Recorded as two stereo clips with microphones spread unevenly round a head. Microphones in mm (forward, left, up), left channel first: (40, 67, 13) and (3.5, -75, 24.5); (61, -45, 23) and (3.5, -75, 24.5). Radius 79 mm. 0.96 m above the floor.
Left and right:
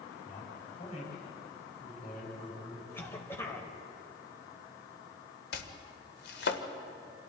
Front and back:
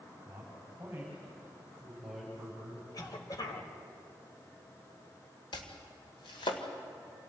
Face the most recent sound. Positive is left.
turn(degrees=60)